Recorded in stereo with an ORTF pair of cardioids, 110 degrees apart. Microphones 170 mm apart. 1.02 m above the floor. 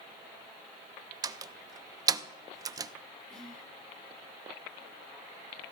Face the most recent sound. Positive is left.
turn(degrees=5)